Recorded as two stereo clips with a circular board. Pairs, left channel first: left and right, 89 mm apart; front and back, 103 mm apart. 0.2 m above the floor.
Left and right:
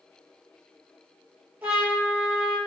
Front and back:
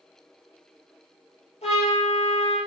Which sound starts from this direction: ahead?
A trumpet, at 1.6 s.